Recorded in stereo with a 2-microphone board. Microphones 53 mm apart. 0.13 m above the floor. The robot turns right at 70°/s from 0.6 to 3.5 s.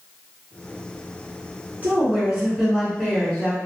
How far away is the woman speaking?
About 1.5 m.